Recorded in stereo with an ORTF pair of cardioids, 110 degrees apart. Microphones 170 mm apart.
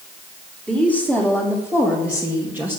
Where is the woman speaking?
5° right, 3.5 m; by 2.8 s 10° right, 2 m.